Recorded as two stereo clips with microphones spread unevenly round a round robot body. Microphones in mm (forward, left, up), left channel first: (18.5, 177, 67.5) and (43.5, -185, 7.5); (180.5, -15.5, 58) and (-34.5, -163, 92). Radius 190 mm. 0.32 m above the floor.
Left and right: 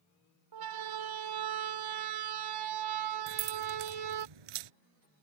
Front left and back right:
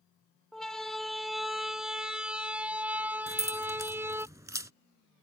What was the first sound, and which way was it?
A siren, 55° right.